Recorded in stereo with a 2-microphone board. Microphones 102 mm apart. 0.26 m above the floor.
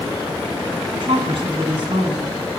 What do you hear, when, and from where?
0.9 s a woman speaking: 55° right (ahead or behind), 2 m